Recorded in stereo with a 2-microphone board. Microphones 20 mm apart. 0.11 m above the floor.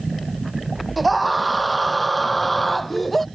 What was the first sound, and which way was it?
A scream, 5° right (ahead or behind).